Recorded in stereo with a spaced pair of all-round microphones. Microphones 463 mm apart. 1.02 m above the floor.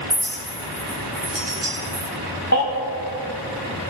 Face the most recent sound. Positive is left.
turn(degrees=35)  # may be behind; listen again after turning